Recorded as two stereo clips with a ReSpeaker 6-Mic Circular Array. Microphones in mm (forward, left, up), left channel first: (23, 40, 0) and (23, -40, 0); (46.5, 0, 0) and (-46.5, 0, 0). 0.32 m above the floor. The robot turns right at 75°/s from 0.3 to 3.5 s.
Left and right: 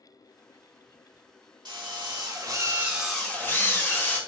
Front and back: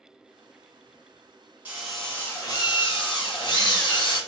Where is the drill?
110° right, 1.2 m; by 4.2 s 30° left, 1.2 m.